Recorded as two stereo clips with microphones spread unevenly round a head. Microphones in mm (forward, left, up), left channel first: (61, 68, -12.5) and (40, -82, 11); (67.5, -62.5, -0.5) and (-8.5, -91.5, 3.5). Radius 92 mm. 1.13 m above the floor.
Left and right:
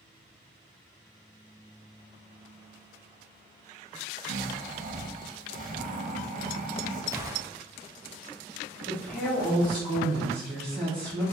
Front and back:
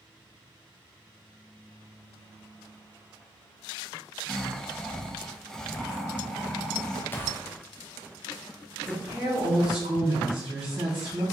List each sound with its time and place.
4.3 s snoring: 65° right, 0.6 m
7.1 s a gunshot: 25° right, 0.6 m
8.9 s a woman speaking: 165° left, 1.2 m